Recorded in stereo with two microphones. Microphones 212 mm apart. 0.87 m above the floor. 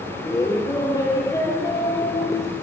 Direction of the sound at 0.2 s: 15° left (ahead or behind).